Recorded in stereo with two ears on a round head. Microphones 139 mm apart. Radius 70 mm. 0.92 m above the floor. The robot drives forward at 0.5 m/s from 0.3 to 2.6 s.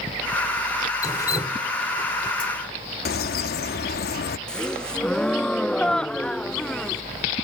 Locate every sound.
1.0 s dripping: 25° left (ahead or behind); by 2.5 s 30° left (ahead or behind)
3.0 s a bird: 70° left (ahead or behind)
4.5 s a gasp: 5° left (ahead or behind)